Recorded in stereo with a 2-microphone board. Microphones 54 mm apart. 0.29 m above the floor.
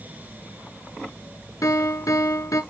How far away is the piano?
About 0.8 m.